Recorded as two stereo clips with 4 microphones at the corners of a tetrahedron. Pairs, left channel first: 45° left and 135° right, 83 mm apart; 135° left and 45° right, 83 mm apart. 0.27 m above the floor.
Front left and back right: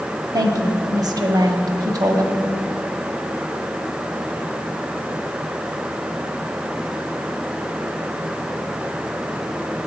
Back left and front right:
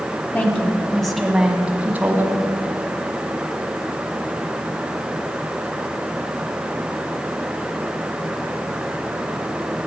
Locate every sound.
0.3 s a woman speaking: 160° right, 1.5 m; by 2.4 s 100° right, 1.8 m